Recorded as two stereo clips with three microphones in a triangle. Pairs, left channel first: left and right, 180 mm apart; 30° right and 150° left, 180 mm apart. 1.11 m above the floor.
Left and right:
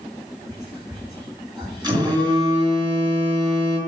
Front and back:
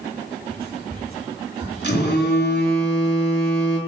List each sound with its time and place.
0.5 s whispering: 165° right, 4.5 m
1.8 s a phone buzzing: 25° right, 3.5 m